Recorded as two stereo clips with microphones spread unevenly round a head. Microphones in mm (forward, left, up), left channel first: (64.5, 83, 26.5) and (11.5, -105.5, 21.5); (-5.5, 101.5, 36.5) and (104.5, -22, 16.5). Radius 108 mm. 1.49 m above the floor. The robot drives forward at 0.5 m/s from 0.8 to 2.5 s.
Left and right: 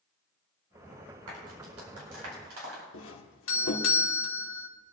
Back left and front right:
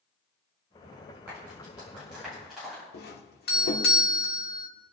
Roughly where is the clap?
Behind right.